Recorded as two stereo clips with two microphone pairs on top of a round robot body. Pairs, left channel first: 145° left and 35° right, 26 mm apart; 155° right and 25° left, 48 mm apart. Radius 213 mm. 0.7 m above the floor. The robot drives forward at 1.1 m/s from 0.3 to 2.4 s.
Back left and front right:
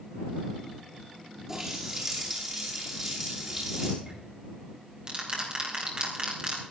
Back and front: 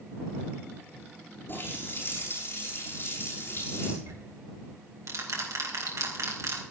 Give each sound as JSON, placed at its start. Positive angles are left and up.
{"t": 1.5, "sound": "a running tap", "azimuth_deg": -110, "distance_m": 9.5}
{"t": 4.0, "sound": "ticking", "azimuth_deg": 20, "distance_m": 3.5}